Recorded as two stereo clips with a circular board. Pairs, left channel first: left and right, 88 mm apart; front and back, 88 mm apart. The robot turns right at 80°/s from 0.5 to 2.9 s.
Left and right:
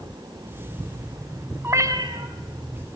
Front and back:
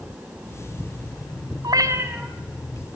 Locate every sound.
1.6 s a cat meowing: 150° right, 1.9 m; by 2.3 s 95° right, 1.9 m